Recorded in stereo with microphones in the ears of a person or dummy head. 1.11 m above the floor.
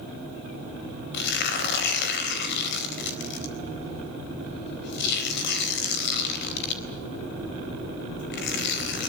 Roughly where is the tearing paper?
Left.